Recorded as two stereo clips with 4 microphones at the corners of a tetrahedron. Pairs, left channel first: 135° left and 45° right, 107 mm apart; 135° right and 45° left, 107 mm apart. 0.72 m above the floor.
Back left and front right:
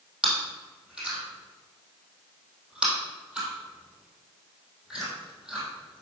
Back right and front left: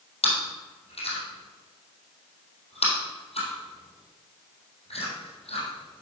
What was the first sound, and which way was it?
Chewing, 125° right.